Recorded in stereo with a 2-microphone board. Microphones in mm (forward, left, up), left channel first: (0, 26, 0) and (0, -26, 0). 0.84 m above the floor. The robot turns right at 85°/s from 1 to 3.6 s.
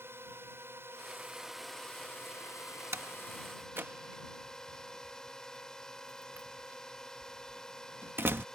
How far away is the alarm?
I don't hear an alarm.